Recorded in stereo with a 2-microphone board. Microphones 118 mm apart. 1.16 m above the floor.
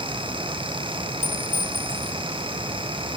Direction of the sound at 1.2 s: 75° left (ahead or behind).